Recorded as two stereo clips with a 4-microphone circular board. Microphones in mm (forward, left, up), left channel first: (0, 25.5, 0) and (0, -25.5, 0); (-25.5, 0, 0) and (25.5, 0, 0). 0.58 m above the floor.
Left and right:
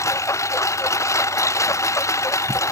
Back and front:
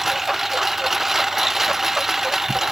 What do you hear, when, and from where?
0.0 s a lawn mower: 85° left